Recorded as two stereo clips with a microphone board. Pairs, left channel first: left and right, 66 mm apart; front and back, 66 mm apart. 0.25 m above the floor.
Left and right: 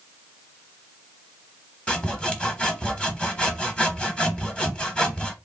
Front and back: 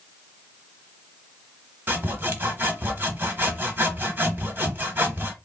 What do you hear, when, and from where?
1.9 s sawing: 150° left, 1.1 m